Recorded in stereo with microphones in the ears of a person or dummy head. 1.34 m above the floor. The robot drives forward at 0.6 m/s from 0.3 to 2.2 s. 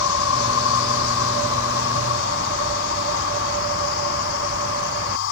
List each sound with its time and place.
0.0 s an insect: 80° left; by 5.3 s 65° left (ahead or behind)